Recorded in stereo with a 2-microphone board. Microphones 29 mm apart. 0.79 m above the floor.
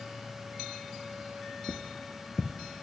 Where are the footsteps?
20° right (ahead or behind), 0.7 m.